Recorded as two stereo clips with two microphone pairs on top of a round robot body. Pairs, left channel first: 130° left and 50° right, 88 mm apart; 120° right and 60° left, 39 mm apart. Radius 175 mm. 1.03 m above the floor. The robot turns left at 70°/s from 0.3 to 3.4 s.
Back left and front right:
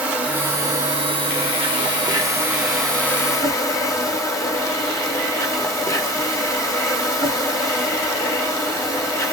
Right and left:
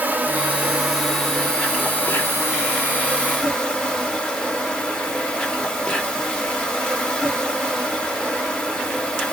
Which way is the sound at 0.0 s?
30° left.